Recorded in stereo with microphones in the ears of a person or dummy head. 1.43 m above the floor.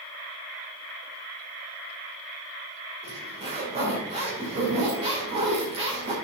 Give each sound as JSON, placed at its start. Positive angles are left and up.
{"t": 3.0, "sound": "a zipper", "side_deg": -35, "distance_m": 2.5}